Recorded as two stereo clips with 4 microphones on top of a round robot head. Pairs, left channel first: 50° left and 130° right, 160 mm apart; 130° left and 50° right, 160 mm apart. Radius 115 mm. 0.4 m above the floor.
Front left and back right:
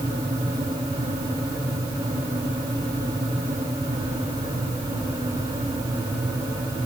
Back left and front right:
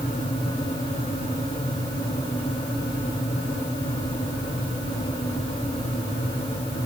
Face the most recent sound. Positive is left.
No sound to turn to.